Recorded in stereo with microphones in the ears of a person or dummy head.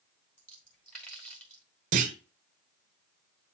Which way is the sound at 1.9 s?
45° right (ahead or behind).